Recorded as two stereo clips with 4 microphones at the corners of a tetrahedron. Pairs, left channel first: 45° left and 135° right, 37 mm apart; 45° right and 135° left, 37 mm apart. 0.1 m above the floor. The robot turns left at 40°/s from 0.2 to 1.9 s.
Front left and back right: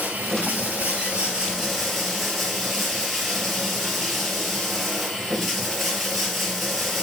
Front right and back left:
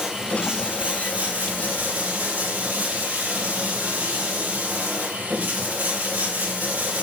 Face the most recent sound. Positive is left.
turn(degrees=135)